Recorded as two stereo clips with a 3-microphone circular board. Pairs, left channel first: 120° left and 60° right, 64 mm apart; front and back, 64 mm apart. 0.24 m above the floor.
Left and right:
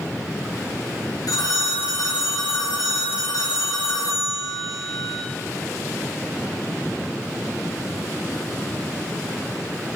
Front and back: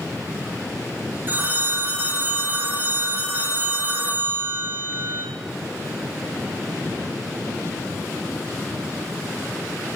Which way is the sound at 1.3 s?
125° left.